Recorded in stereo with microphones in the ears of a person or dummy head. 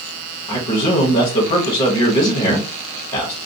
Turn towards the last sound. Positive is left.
turn(degrees=45)  # may be behind; listen again after turning